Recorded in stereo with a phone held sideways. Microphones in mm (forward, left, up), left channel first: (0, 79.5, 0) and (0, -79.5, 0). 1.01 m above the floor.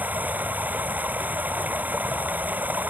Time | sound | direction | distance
0.0 | running water | 10° right (ahead or behind) | ?